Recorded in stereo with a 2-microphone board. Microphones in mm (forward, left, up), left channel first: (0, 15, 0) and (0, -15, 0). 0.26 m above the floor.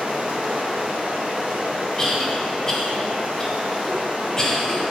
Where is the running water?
55° right (ahead or behind), 3 m.